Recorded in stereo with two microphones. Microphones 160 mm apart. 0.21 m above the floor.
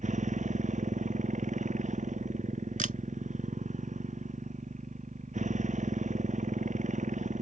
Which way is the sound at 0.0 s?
50° right (ahead or behind).